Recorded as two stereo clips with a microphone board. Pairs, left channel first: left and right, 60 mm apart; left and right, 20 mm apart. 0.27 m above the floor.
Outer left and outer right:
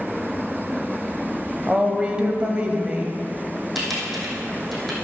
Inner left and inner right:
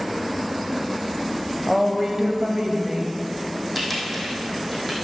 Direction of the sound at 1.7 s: 20° right (ahead or behind).